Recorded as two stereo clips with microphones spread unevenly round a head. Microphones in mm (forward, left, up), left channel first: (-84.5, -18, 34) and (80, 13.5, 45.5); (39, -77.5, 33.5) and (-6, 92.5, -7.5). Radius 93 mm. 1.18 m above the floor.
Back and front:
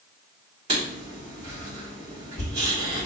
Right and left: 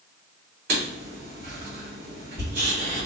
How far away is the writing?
About 1.9 m.